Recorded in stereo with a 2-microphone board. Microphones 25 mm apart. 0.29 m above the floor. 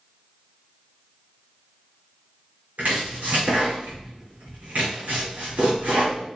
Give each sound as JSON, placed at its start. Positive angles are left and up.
{"t": 2.8, "sound": "chopping", "side_deg": -75, "distance_m": 3.5}